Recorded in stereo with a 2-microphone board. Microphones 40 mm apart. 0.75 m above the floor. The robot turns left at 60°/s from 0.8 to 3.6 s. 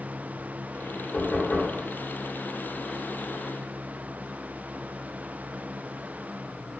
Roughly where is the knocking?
Left.